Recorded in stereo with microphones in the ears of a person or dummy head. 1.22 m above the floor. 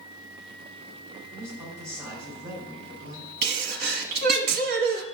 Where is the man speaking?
20° right (ahead or behind), 3.5 m.